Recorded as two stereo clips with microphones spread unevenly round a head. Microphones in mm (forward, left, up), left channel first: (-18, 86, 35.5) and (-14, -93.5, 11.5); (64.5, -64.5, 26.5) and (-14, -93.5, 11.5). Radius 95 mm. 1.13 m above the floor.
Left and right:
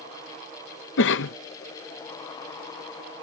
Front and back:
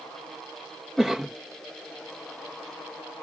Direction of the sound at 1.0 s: 110° left.